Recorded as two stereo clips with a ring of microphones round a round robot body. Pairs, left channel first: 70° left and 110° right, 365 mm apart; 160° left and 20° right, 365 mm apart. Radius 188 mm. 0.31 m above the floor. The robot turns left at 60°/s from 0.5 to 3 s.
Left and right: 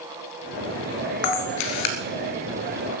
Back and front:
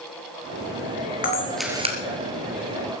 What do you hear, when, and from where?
1.2 s a camera shutter: 90° left, 2.5 m; by 2.0 s 45° left, 2.5 m